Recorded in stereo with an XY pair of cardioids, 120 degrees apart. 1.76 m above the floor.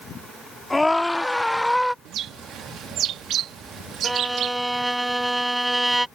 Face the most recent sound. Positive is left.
turn(degrees=-5)